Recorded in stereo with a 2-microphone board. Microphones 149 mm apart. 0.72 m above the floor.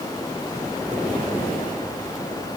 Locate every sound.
Only background noise.